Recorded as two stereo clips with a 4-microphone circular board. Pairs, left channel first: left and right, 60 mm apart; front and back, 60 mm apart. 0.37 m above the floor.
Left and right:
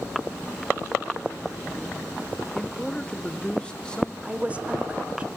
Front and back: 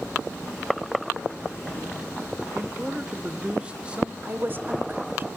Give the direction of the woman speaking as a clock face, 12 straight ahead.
5 o'clock.